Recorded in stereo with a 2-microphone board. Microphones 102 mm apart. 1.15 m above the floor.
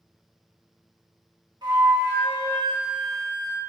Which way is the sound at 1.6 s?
45° right (ahead or behind).